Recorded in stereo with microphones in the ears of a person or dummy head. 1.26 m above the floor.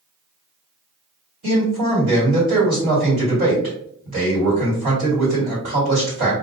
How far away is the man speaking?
About 1.6 m.